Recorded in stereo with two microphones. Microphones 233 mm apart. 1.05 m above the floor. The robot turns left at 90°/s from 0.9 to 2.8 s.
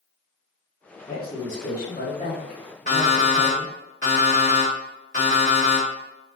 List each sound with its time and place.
1.1 s a woman speaking: 140° left, 0.9 m; by 3.7 s 15° right, 0.9 m
2.9 s an alarm clock: 30° left (ahead or behind), 1.2 m